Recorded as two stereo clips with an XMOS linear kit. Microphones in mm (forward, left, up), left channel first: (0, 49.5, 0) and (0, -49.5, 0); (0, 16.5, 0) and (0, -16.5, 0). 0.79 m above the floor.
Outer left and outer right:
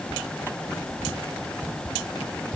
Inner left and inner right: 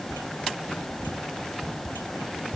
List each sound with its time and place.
Only background noise.